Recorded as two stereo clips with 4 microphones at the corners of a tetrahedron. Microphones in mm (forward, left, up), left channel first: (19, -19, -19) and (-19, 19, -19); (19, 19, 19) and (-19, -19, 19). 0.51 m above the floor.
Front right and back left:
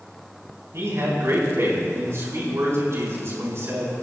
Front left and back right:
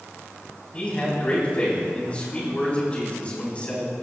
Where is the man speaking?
110° left, 4 m.